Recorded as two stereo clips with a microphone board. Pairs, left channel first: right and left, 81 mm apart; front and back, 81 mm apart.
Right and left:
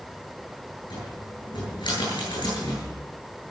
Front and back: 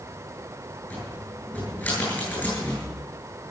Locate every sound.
0.9 s a cupboard door: 65° right, 9.5 m